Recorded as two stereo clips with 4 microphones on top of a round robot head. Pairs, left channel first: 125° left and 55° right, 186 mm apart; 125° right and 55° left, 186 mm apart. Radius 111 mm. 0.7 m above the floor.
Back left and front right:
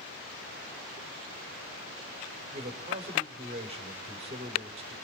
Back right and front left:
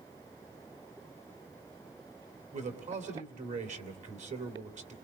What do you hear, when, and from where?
2.5 s a man speaking: 5° left, 3 m